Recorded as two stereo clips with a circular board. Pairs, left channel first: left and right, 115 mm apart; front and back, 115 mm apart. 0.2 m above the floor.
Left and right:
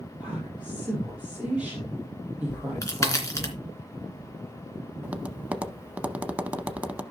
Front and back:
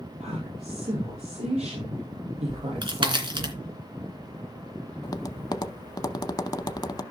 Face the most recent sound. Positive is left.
turn(degrees=-20)